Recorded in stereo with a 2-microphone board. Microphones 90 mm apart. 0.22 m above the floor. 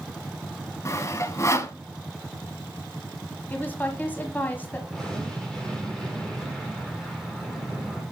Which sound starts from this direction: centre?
An explosion, at 4.9 s.